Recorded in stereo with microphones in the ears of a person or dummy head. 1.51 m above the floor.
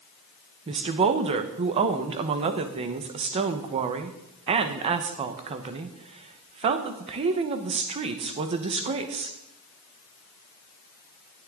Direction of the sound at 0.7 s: 35° right (ahead or behind).